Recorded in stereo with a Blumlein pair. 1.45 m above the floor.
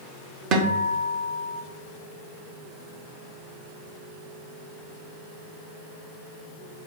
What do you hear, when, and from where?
0.5 s a guitar: 35° right, 1.1 m